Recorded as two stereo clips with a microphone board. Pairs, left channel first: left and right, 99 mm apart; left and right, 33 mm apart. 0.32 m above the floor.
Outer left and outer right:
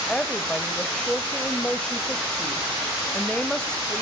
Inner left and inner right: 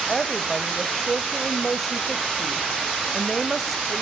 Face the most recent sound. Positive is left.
turn(degrees=5)  # may be behind; listen again after turning